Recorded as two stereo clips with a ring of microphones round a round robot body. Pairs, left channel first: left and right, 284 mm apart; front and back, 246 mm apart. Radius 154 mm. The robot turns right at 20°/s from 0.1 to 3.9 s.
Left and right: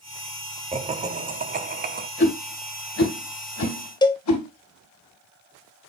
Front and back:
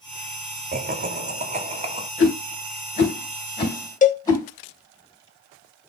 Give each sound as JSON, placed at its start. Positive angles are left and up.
{"t": 0.7, "sound": "laughter", "azimuth_deg": -150, "distance_m": 1.3}
{"t": 2.2, "sound": "a whoosh", "azimuth_deg": 40, "distance_m": 3.5}
{"t": 4.0, "sound": "a cowbell", "azimuth_deg": 25, "distance_m": 0.9}